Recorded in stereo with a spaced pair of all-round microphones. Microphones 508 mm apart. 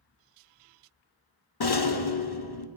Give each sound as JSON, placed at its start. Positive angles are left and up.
{"t": 1.6, "sound": "a rattle", "side_deg": 50, "distance_m": 0.8}